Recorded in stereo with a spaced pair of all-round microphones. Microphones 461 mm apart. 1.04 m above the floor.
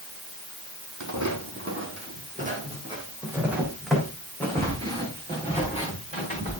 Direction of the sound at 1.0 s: 40° right (ahead or behind).